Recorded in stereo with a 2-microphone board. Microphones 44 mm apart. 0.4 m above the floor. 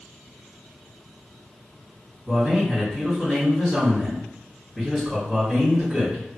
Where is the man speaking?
10° right (ahead or behind), 1.9 m.